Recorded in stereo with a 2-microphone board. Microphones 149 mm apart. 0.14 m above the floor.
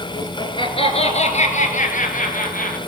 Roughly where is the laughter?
Left.